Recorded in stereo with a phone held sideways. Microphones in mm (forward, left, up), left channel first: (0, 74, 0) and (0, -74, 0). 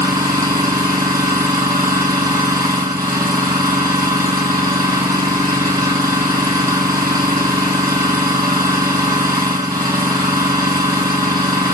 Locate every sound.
0.0 s an engine running: 25° right (ahead or behind), 7.5 m